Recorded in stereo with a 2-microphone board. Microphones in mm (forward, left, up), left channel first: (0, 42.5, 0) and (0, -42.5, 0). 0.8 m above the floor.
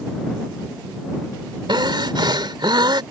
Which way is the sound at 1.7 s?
65° right (ahead or behind).